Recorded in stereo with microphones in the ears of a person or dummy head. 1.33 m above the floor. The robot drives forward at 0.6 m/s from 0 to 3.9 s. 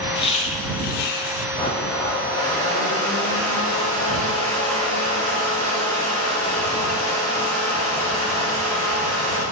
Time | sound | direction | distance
0.1 | laughter | 35° left (ahead or behind) | 1.0 m
1.6 | a blender | 25° left (ahead or behind) | 2.5 m